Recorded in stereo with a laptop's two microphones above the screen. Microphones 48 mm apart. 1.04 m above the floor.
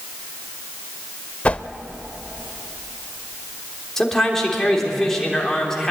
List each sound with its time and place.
1.4 s a whoosh: 30° left (ahead or behind), 0.8 m
4.0 s a man speaking: 10° left (ahead or behind), 3 m